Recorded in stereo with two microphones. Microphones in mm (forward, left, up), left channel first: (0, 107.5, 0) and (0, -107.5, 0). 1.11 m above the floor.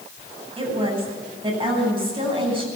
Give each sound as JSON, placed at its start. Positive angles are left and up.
{"t": 0.6, "sound": "a woman speaking", "side_deg": -25, "distance_m": 9.0}